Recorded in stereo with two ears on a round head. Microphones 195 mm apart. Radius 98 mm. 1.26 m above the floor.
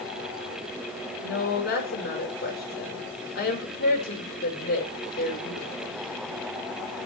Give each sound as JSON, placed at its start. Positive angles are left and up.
{"t": 1.2, "sound": "a woman speaking", "side_deg": 50, "distance_m": 5.5}